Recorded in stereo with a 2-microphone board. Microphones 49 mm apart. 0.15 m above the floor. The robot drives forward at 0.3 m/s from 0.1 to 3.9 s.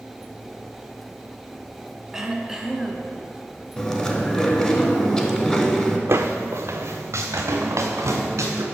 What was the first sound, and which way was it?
Throat clearing, 10° right (ahead or behind).